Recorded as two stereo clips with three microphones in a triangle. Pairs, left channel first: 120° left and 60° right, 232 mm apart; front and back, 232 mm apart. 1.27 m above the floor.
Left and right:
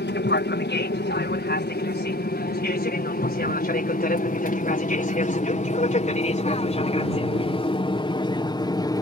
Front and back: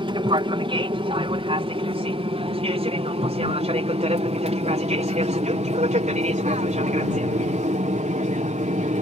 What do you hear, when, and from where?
0.0 s an aircraft: 120° left; by 9.0 s 175° left